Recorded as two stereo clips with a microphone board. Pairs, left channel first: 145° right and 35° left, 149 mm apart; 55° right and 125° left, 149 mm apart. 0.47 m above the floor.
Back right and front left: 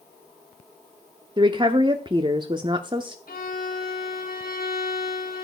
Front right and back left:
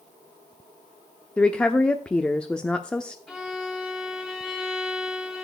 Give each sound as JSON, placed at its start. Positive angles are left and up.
{"t": 1.4, "sound": "a woman speaking", "azimuth_deg": 25, "distance_m": 0.8}
{"t": 3.3, "sound": "a violin", "azimuth_deg": -150, "distance_m": 2.5}